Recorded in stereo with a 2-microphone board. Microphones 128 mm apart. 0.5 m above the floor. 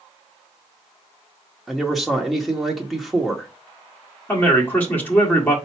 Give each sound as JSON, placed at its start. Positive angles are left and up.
{"t": 1.7, "sound": "a man speaking", "side_deg": 0, "distance_m": 0.9}
{"t": 4.3, "sound": "a man speaking", "side_deg": 15, "distance_m": 1.4}